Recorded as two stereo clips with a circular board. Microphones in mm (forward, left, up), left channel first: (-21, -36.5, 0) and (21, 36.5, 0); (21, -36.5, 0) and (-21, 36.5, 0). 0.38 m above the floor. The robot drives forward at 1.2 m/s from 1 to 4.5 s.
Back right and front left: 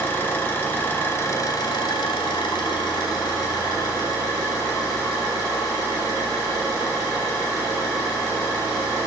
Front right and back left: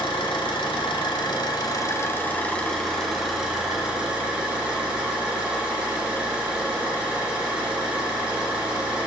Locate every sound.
0.0 s an engine running: 55° right, 1.4 m; by 9.1 s 160° right, 3.5 m